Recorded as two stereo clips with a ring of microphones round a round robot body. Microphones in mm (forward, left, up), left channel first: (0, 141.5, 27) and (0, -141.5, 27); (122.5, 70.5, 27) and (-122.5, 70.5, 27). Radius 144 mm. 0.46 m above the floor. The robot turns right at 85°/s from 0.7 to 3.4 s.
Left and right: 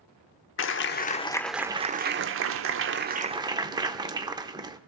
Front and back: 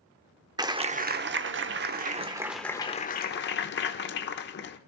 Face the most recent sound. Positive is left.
turn(degrees=-20)